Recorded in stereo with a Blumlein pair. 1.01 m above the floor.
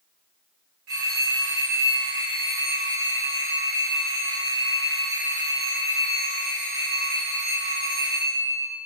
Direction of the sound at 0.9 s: 35° right.